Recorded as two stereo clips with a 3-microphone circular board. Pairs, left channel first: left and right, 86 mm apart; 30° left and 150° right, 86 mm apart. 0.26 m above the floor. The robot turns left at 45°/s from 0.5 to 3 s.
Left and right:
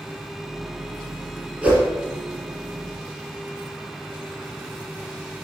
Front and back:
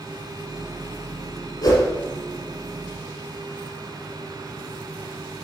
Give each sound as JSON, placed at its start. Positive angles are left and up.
{"t": 1.6, "sound": "a whoosh", "azimuth_deg": -10, "distance_m": 3.0}